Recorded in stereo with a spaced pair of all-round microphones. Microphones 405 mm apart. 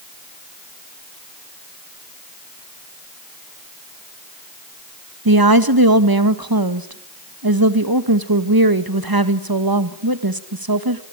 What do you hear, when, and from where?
5.2 s a woman speaking: 60° right (ahead or behind), 1.8 m